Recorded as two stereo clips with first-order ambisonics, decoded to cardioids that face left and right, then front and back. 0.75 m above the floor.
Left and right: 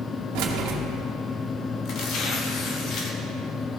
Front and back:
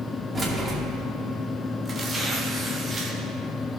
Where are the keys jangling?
100° right, 1.1 m.